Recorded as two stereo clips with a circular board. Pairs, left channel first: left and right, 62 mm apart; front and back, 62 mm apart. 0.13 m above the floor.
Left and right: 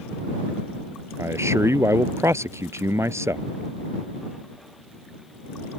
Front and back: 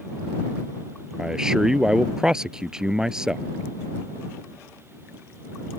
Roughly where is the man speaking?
Right.